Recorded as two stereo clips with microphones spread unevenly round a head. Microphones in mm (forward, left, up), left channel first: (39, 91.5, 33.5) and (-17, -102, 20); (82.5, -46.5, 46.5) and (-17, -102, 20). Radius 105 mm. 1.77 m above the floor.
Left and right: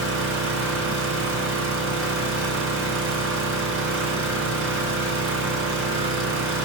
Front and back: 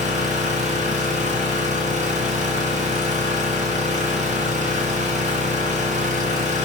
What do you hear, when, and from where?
0.0 s an engine running: 140° right, 4.5 m